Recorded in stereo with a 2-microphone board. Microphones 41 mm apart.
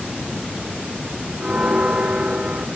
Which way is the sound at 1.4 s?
20° right (ahead or behind).